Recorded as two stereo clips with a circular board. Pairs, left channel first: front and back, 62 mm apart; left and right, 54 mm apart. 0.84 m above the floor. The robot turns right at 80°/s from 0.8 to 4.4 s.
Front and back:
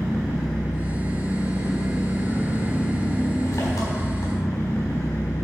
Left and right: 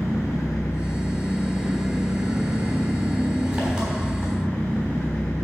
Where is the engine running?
115° left, 3.5 m; by 5.5 s 40° left, 3.5 m.